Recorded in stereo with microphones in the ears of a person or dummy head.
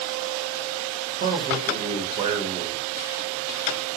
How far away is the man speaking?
About 1.4 m.